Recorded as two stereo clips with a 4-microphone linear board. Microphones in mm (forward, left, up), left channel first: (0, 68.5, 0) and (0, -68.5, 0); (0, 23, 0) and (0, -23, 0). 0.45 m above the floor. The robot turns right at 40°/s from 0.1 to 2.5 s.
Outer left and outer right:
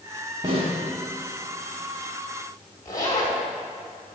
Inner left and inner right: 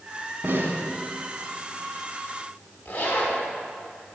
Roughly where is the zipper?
Left.